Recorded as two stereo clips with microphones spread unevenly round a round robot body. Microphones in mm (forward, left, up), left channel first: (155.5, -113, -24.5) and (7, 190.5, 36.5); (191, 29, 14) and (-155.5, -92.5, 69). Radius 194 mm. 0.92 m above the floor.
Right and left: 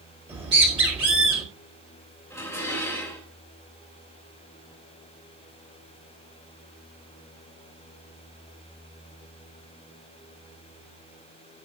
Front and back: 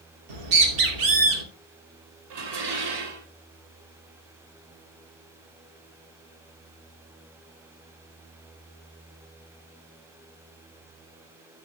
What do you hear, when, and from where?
0.3 s a bird: 165° right, 3 m
2.3 s dishes clattering: 145° right, 3 m